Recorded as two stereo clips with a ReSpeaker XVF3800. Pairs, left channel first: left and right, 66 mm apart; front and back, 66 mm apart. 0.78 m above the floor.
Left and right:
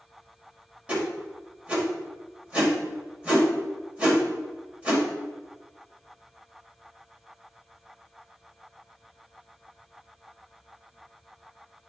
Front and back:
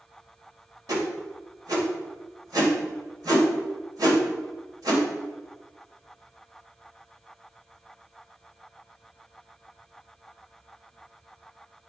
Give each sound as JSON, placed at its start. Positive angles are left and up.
{"t": 0.9, "sound": "a whoosh", "azimuth_deg": -160, "distance_m": 1.9}